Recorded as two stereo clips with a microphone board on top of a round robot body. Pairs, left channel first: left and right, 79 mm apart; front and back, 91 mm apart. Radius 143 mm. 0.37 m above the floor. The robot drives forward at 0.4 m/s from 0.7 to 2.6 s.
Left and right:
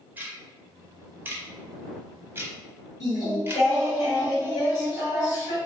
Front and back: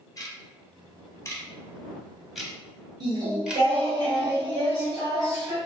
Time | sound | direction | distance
0.2 | ticking | 30° right | 1.1 m
3.0 | singing | 135° left | 2.0 m